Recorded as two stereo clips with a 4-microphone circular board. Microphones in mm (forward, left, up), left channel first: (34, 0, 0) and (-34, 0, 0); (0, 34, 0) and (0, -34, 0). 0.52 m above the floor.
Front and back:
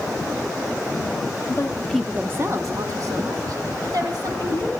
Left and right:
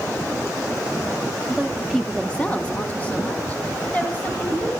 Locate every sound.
1.5 s a woman speaking: 10° right, 0.9 m; by 4.7 s 160° left, 3.5 m